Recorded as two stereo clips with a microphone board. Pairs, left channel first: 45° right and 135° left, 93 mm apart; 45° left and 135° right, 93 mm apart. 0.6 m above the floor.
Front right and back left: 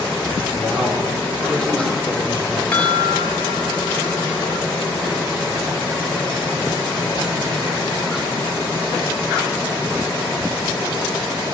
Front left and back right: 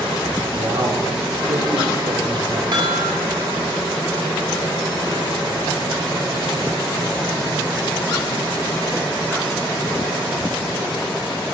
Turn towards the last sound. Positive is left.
turn(degrees=-115)